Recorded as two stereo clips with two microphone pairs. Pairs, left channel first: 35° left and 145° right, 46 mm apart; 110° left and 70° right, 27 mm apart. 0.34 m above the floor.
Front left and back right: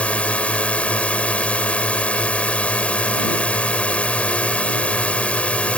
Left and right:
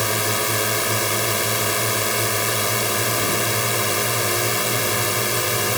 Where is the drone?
20° left.